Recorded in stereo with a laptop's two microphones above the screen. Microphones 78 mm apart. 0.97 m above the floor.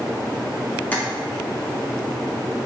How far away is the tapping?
About 0.5 m.